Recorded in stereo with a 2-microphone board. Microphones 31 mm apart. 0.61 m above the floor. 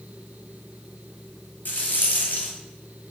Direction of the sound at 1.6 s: 70° left (ahead or behind).